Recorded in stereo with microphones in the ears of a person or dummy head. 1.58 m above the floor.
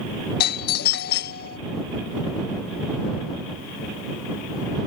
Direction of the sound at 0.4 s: 55° left (ahead or behind).